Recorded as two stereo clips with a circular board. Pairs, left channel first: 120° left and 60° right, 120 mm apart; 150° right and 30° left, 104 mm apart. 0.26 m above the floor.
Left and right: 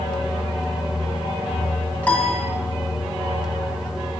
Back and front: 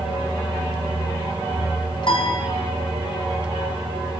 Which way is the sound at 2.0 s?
165° right.